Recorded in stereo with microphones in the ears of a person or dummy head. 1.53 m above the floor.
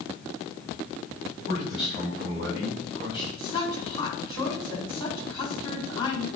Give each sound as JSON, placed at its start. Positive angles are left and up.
{"t": 1.5, "sound": "a man speaking", "side_deg": 0, "distance_m": 4.5}
{"t": 3.4, "sound": "a woman speaking", "side_deg": 25, "distance_m": 4.0}